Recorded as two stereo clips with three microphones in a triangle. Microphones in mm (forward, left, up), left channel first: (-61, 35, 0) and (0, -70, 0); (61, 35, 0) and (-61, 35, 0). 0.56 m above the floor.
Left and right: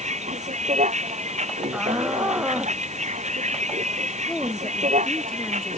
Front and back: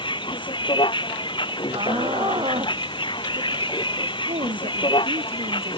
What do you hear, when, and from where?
0.0 s a vehicle: 50° right
1.7 s a shout: 140° right
4.3 s a woman speaking: 155° right